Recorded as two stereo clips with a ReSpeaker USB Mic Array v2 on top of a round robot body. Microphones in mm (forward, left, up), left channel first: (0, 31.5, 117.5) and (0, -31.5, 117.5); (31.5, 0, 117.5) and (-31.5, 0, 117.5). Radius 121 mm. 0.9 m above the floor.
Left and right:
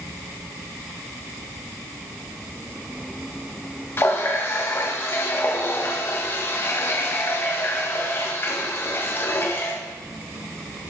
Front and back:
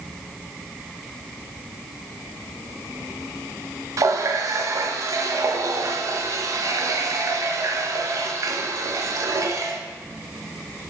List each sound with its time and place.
4.0 s a running tap: 145° left, 0.6 m